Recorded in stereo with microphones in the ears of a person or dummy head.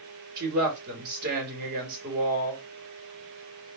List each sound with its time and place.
0.4 s a woman speaking: 50° right (ahead or behind), 2 m